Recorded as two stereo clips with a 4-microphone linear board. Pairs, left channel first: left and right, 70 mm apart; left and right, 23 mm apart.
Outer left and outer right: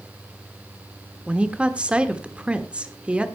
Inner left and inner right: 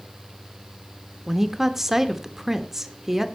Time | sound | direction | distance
1.3 | a woman speaking | 15° right (ahead or behind) | 1.2 m